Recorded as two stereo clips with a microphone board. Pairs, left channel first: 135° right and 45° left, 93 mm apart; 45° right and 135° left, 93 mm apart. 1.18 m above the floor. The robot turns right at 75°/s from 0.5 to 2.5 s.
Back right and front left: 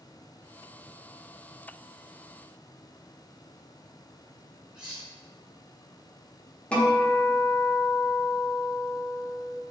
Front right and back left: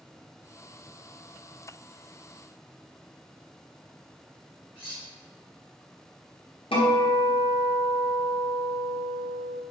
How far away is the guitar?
About 0.8 m.